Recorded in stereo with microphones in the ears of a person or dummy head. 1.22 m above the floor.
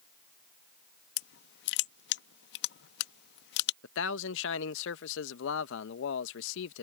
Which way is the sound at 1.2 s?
65° left (ahead or behind).